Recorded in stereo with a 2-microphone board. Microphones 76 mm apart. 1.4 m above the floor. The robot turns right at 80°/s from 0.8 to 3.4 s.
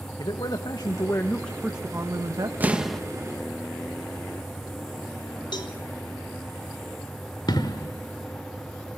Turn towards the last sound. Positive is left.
turn(degrees=65)  # may be behind; listen again after turning